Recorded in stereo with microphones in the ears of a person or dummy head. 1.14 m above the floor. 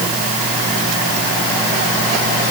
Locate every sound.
Only background noise.